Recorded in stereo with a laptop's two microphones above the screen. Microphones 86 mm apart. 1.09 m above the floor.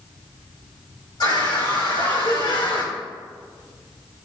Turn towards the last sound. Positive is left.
turn(degrees=80)